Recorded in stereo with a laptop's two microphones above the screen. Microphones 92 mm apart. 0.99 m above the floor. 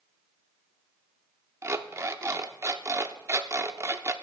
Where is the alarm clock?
30° right (ahead or behind), 0.6 m.